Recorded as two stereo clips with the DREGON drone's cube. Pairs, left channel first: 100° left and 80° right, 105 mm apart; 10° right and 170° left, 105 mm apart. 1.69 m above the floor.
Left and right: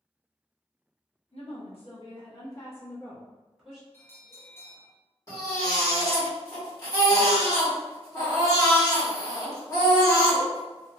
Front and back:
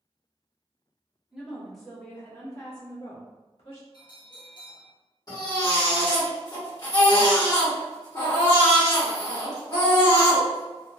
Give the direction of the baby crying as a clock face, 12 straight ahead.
11 o'clock.